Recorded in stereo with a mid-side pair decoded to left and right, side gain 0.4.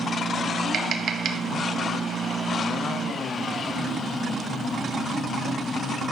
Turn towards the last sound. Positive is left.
turn(degrees=-60)